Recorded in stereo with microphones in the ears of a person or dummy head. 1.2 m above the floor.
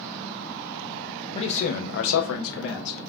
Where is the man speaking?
30° left (ahead or behind), 0.5 m; by 3.1 s 65° left (ahead or behind), 0.9 m.